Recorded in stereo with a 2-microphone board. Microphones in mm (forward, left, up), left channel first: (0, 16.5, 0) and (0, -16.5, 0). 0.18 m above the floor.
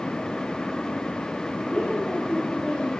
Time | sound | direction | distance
1.7 | a woman speaking | 45° left (ahead or behind) | 5.5 m